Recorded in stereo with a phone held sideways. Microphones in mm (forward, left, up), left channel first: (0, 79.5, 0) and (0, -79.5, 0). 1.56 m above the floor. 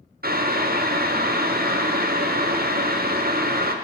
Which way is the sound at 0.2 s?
70° right (ahead or behind).